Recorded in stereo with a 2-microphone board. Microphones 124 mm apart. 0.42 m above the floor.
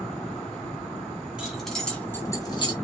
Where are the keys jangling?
5° right (ahead or behind), 2.5 m; by 2.7 s 45° left (ahead or behind), 1.9 m.